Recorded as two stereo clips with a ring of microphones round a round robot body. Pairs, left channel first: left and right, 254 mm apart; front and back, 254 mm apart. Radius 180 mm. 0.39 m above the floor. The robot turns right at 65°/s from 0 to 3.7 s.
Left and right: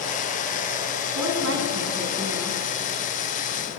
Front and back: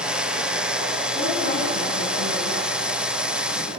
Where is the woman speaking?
85° right, 4.5 m; by 2.6 s 10° left, 4.5 m.